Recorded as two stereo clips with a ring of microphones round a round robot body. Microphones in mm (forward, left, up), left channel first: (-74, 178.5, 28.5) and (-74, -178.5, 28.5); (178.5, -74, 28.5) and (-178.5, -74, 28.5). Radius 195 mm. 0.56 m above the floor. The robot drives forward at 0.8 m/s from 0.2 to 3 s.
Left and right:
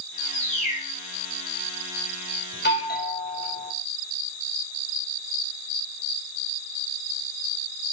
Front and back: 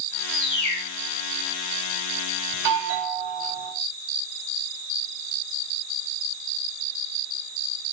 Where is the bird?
15° left, 5.5 m; by 0.9 s 20° left, 5 m.